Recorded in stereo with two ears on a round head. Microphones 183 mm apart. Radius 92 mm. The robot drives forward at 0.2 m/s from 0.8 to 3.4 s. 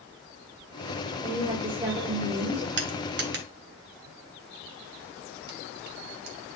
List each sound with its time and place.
1.2 s a woman speaking: 25° right (ahead or behind), 2.0 m
2.8 s crushing: 60° right (ahead or behind), 1.5 m; by 6.4 s 55° right (ahead or behind), 1.6 m